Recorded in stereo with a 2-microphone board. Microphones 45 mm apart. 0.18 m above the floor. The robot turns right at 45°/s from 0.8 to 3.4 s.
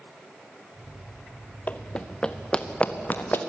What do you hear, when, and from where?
1.7 s running footsteps: 35° left (ahead or behind), 0.8 m; by 3.4 s 50° left (ahead or behind), 2.5 m